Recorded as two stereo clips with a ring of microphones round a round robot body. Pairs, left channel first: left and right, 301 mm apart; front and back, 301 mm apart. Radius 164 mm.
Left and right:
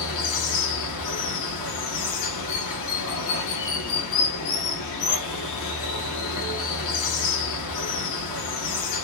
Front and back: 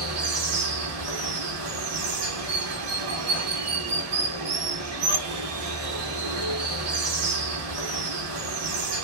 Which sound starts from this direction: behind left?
Running water, at 0.0 s.